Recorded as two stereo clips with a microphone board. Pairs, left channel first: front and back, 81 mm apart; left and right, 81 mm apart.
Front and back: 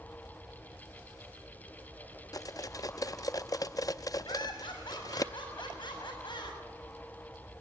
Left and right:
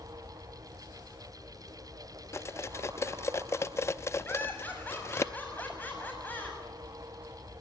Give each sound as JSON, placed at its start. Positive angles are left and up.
{"t": 2.3, "sound": "cutlery clinking", "azimuth_deg": 40, "distance_m": 0.5}
{"t": 4.2, "sound": "laughter", "azimuth_deg": 20, "distance_m": 7.5}